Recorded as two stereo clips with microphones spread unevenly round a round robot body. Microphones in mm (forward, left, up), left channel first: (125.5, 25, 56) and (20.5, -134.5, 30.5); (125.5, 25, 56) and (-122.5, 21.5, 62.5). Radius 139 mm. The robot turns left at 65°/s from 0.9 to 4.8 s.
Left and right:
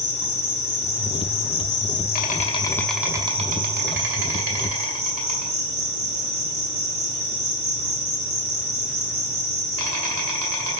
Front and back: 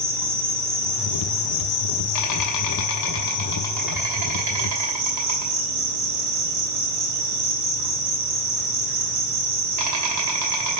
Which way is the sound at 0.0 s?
100° left.